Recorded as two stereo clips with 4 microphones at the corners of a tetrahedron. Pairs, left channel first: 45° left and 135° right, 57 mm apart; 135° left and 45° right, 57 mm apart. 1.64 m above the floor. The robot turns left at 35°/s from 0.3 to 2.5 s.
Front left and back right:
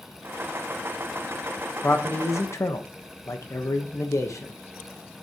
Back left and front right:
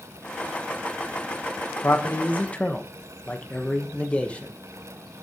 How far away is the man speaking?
About 1.1 m.